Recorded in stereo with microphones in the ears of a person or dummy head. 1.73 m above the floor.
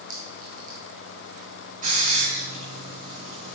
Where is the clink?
40° right (ahead or behind), 1.9 m.